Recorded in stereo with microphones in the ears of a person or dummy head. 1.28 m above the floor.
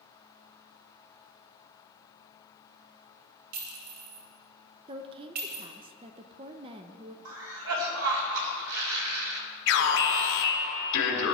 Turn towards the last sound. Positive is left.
turn(degrees=65)  # may be behind; listen again after turning